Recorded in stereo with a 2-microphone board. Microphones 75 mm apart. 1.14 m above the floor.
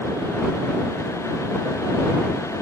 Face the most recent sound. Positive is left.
No sound to turn to.